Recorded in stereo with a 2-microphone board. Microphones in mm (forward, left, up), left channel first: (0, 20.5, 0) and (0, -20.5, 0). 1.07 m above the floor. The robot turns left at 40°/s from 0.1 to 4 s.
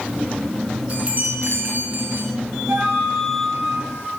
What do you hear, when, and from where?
0.9 s a chime: 30° right, 4 m; by 2.3 s 90° right, 4 m
2.7 s a flute: 50° right, 7.5 m; by 4.1 s 100° right, 7.5 m